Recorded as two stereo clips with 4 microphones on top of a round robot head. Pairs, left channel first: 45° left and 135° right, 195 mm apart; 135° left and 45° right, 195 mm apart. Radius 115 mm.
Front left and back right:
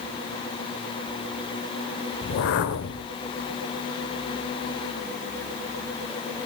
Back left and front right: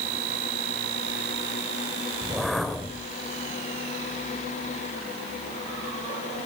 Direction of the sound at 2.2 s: 45° left.